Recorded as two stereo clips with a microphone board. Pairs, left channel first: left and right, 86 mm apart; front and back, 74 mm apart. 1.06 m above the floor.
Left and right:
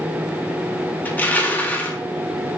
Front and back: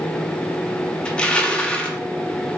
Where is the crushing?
55° left, 0.7 m.